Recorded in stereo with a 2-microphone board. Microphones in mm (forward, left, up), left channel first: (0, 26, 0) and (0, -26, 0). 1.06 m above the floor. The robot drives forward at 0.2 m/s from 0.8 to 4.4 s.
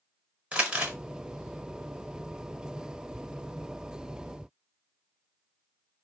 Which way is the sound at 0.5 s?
25° right (ahead or behind).